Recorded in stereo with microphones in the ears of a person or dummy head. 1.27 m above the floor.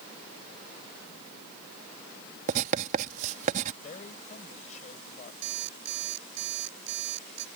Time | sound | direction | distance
2.5 | writing | 45° right (ahead or behind) | ?
3.8 | a man speaking | 40° left (ahead or behind) | ?
5.4 | an alarm clock | 65° right (ahead or behind) | ?